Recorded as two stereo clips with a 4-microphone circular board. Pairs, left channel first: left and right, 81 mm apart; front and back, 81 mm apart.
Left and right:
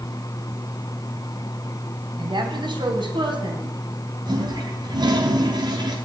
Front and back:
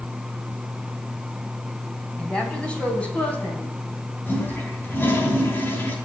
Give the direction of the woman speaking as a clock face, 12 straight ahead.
3 o'clock.